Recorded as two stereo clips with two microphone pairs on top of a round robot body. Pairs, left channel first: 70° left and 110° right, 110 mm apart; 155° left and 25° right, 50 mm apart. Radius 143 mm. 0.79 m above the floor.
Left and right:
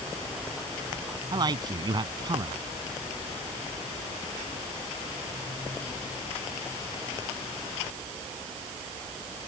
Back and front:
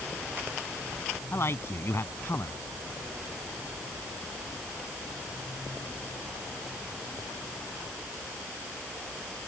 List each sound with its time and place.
1.3 s a man speaking: 160° right